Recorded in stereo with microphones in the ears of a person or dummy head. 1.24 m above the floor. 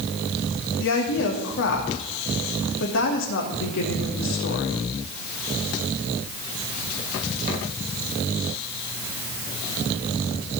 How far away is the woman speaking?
About 2.5 m.